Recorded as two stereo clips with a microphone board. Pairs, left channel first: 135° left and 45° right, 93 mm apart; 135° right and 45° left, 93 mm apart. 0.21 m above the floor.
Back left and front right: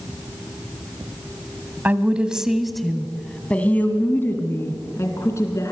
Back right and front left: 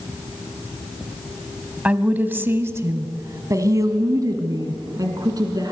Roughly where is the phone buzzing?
I don't hear a phone buzzing.